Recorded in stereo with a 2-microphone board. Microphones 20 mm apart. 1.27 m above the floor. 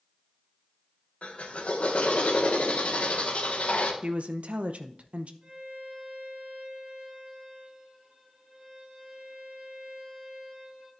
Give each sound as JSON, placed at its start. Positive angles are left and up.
{"t": 1.2, "sound": "a drill", "side_deg": 75, "distance_m": 1.4}
{"t": 4.0, "sound": "a woman speaking", "side_deg": -70, "distance_m": 0.6}
{"t": 5.4, "sound": "a violin", "side_deg": -30, "distance_m": 5.0}